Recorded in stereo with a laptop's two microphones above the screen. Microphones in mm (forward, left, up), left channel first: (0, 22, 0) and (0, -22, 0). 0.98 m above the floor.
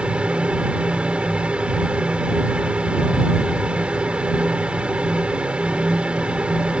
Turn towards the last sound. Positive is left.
turn(degrees=-25)  # may be behind; listen again after turning